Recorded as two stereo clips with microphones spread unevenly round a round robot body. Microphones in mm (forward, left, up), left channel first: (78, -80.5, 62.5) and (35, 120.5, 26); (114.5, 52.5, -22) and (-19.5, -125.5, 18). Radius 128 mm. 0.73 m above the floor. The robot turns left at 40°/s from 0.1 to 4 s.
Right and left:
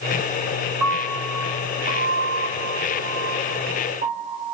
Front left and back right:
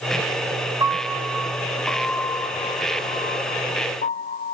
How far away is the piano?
About 0.6 m.